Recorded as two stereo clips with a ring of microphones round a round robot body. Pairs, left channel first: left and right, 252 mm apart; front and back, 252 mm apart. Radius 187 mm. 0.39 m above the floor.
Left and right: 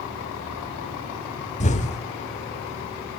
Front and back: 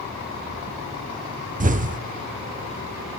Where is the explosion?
140° left, 1.5 m.